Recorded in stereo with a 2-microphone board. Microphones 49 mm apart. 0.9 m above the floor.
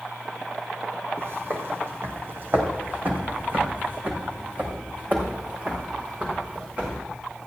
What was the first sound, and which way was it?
Footsteps, 60° right (ahead or behind).